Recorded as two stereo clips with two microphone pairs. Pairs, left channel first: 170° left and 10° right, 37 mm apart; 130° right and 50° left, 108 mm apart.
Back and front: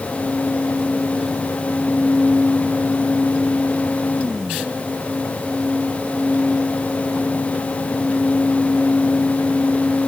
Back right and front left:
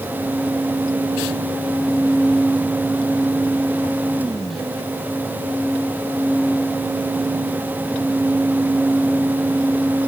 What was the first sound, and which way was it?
Only background noise.